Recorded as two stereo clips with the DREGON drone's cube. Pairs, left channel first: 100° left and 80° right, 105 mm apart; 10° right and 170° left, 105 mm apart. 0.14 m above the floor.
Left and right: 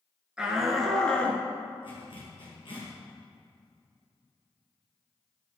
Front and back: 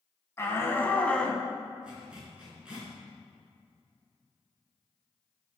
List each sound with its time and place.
0.4 s a shout: 10° right, 1.2 m; by 1.4 s 65° left, 1.2 m
1.8 s a zipper: 90° left, 3 m